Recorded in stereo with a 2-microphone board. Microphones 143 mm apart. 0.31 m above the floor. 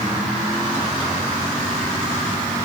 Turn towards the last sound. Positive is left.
No sound to turn to.